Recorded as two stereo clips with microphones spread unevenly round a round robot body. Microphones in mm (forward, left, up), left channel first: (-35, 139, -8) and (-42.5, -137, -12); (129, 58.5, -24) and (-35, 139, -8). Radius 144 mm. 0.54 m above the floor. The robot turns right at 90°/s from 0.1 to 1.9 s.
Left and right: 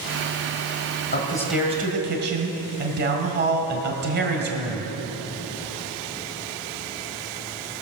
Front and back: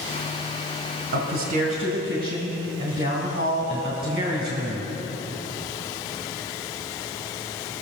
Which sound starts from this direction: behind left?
A man speaking, at 1.1 s.